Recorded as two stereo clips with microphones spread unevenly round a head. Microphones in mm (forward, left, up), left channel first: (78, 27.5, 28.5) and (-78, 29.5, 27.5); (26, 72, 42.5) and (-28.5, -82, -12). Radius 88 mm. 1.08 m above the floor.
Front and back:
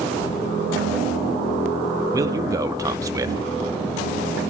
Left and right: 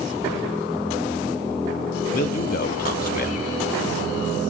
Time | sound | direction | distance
2.1 | a man speaking | 110° left | 2 m